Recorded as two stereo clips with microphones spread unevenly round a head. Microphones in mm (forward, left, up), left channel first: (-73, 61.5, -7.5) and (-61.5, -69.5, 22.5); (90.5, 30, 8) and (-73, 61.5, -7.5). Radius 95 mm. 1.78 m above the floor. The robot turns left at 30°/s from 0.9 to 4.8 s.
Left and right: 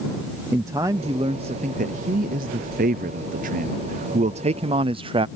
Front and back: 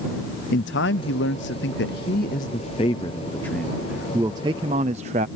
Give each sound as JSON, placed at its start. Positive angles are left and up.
{"t": 0.5, "sound": "a man speaking", "azimuth_deg": -15}